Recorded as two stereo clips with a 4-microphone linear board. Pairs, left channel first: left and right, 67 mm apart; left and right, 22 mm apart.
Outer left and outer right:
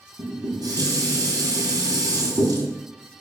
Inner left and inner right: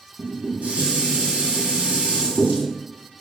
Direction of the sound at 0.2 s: 75° right (ahead or behind).